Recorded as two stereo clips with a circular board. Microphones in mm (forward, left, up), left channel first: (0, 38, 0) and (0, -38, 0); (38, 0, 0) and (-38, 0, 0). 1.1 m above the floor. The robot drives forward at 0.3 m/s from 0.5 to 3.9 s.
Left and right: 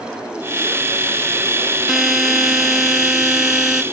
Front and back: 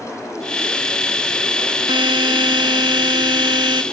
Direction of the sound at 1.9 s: 175° right.